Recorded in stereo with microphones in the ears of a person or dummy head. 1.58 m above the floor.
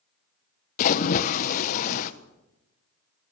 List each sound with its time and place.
0.8 s a splash: 45° left (ahead or behind), 1.2 m